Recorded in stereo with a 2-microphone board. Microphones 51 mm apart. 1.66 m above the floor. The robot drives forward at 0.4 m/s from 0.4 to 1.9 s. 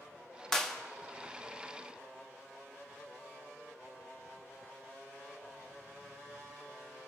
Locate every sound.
0.5 s a clap: 10° left (ahead or behind), 0.9 m